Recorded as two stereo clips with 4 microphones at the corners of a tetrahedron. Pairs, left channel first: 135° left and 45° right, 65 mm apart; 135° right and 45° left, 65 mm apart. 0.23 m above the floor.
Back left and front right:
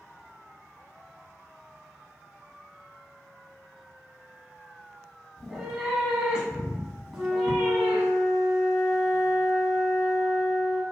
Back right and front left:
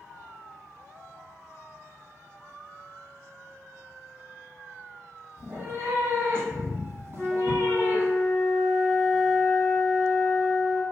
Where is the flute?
10° left, 0.8 m.